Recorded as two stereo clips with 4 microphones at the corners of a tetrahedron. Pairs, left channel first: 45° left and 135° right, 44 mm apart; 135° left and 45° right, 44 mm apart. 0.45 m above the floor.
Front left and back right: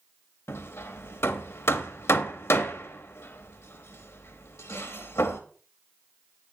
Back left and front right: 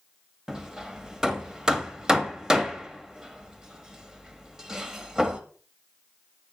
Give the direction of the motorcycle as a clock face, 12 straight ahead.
No motorcycle in this recording.